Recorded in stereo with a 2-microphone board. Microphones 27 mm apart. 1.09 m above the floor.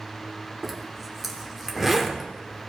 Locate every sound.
0.6 s a zipper: 5° right (ahead or behind), 1.4 m